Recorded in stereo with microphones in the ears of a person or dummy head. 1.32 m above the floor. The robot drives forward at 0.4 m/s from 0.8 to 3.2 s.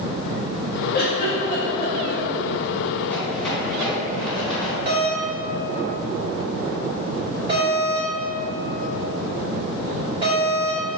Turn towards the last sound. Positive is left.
turn(degrees=-30)  # may be behind; listen again after turning